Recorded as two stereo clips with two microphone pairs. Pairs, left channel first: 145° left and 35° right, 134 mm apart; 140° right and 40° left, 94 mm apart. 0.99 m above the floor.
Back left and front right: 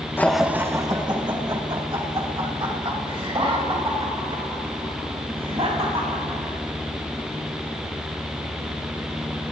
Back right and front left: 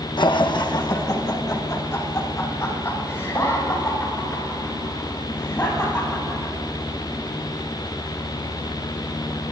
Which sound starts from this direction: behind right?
Laughter, at 0.2 s.